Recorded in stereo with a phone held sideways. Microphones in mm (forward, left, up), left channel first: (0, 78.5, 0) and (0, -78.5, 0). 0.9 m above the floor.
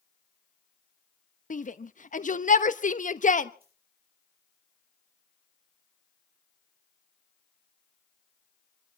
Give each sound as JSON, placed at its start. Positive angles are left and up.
{"t": 1.5, "sound": "a shout", "side_deg": 55, "distance_m": 1.0}
{"t": 3.6, "sound": "a dropped coin", "side_deg": -70, "distance_m": 7.0}